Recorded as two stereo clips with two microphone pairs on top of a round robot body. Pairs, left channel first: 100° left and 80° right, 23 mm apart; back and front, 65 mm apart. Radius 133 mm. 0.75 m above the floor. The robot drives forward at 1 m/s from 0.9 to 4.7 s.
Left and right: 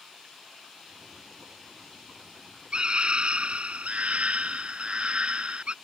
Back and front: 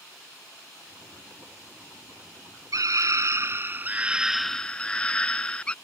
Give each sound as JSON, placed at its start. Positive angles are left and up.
{"t": 2.7, "sound": "a scream", "azimuth_deg": -35}